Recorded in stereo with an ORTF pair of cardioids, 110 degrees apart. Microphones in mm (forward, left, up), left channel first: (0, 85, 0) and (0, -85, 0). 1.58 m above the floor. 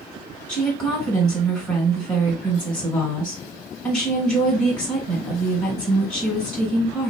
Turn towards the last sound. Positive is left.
turn(degrees=5)